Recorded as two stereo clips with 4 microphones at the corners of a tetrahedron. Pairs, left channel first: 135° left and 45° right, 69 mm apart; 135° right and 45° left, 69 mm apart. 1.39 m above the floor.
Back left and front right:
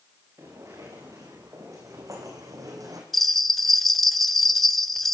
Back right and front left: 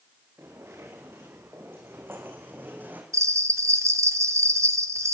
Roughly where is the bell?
Ahead left.